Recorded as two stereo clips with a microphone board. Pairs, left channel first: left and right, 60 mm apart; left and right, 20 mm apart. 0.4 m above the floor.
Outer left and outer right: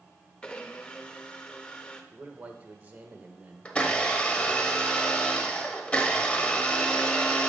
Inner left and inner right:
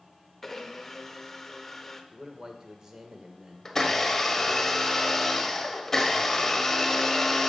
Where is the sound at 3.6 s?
20° left (ahead or behind), 1.0 m.